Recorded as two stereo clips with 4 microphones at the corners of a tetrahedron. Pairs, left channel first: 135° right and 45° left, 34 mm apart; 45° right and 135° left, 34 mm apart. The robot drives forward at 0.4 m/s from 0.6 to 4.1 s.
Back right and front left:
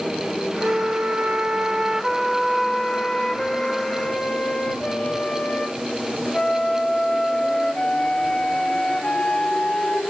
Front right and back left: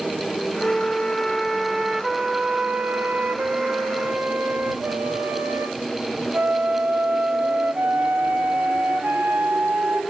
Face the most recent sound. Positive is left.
turn(degrees=165)